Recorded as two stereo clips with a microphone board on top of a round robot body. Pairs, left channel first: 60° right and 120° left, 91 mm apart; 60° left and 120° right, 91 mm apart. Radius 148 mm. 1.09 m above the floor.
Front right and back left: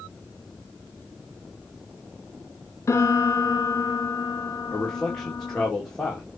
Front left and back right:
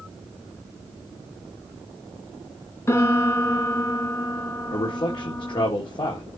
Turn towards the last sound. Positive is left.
turn(degrees=25)